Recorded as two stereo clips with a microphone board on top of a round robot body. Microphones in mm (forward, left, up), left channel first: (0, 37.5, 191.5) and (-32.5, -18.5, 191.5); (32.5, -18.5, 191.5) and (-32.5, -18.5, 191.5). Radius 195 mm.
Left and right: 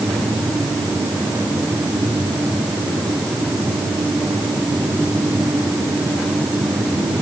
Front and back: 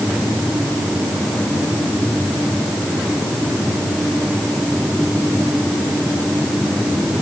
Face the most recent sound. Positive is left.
No sound to turn to.